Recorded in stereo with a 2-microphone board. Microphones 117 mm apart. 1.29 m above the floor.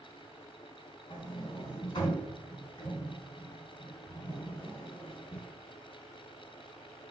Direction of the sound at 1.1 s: 45° left (ahead or behind).